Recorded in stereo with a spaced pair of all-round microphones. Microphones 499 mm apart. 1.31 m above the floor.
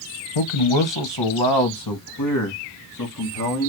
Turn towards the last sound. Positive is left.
turn(degrees=30)  # may be behind; listen again after turning